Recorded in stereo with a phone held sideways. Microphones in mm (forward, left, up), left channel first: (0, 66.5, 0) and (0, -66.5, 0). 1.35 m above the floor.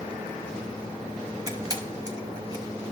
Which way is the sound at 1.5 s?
25° right (ahead or behind).